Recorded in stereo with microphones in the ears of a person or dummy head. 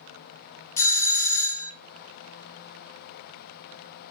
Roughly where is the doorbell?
Centre.